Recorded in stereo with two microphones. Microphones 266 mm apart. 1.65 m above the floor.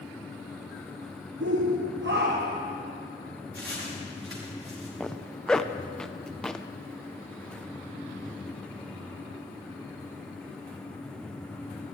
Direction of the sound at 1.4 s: 65° right (ahead or behind).